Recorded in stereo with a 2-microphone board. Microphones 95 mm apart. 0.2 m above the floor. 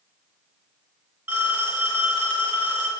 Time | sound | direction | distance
1.3 | a phone ringing | 15° right (ahead or behind) | 2 m